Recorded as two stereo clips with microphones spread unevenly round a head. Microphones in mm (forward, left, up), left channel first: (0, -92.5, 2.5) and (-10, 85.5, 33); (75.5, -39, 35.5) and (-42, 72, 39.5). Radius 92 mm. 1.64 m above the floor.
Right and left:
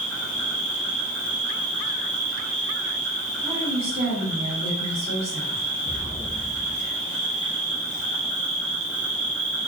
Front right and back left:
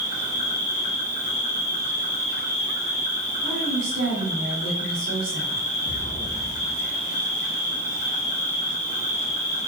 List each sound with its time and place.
0.0 s an insect: 175° left, 0.9 m
3.4 s a woman speaking: 145° left, 1.4 m
5.8 s an explosion: 15° right, 0.6 m